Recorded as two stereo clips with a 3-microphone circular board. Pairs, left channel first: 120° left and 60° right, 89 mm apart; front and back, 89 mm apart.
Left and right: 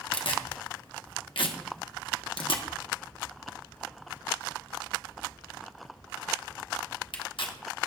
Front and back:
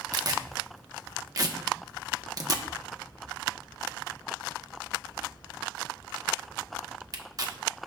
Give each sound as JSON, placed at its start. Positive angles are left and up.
{"t": 0.1, "sound": "tearing paper", "azimuth_deg": 135, "distance_m": 1.1}